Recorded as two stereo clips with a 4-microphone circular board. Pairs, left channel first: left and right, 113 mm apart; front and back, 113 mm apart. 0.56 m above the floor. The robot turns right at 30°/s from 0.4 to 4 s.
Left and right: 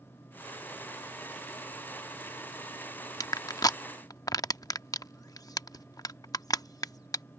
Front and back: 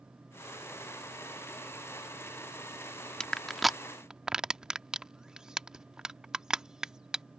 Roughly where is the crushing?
Left.